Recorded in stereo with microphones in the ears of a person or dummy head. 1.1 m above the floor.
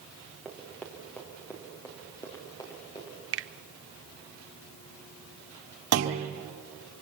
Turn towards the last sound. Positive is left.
turn(degrees=-70)  # may be behind; listen again after turning